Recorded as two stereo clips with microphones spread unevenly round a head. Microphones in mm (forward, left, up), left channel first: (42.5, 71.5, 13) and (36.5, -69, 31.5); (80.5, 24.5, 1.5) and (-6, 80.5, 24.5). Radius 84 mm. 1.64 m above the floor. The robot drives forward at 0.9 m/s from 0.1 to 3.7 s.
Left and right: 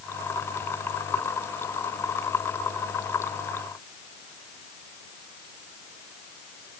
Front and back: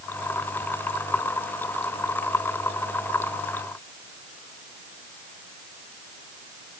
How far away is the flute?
I don't hear a flute.